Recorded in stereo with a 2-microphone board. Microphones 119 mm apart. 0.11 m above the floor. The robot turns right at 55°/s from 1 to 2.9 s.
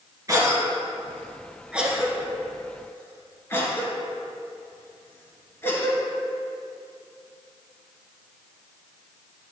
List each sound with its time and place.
0.3 s a cough: 30° right (ahead or behind), 1.9 m; by 6.0 s 20° left (ahead or behind), 1.9 m